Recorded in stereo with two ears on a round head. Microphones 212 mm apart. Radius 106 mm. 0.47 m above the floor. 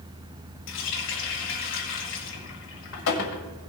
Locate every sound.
0.7 s a running tap: 55° left (ahead or behind), 1.6 m